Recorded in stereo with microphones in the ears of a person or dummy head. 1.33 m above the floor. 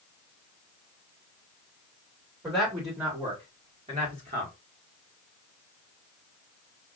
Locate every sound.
2.4 s a man speaking: 10° right (ahead or behind), 2 m; by 4.5 s 40° right (ahead or behind), 1.7 m